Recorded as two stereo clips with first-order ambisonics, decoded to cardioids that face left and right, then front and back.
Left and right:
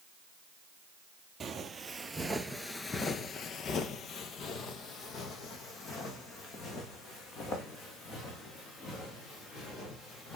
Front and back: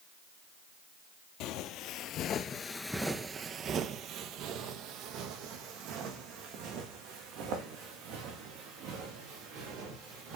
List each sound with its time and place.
1.4 s footsteps: 20° right, 0.9 m; by 10.4 s 150° left, 4 m